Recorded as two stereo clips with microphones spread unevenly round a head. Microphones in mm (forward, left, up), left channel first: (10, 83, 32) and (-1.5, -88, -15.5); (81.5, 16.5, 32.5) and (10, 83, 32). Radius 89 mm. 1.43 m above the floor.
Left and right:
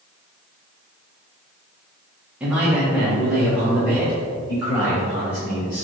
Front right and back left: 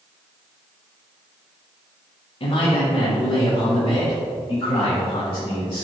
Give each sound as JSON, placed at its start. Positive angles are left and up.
{"t": 2.4, "sound": "a man speaking", "azimuth_deg": -10, "distance_m": 1.7}